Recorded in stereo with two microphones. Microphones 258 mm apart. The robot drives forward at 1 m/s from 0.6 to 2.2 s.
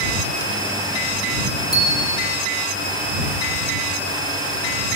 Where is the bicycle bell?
40° right (ahead or behind), 2.5 m; by 2.4 s 50° right (ahead or behind), 1.9 m.